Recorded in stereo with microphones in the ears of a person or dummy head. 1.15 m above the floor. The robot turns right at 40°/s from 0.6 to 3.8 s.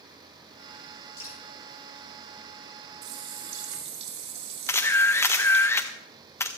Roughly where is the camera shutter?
Left.